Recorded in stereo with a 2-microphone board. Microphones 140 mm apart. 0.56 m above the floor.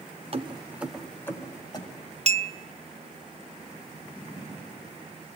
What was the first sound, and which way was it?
Keys jangling, 45° right (ahead or behind).